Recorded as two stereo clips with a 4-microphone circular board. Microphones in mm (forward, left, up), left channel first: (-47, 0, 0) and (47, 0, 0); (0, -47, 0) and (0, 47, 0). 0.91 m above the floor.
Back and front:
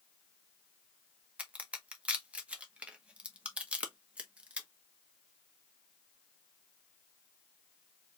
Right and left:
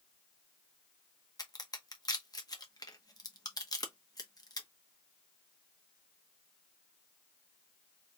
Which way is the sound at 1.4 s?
70° right.